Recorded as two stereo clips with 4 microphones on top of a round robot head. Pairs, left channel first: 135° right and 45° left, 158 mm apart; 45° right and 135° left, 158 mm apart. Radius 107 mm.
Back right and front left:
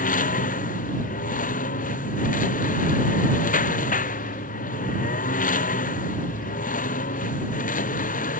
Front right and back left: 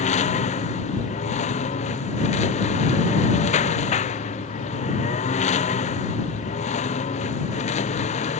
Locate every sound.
0.0 s a lawn mower: 95° right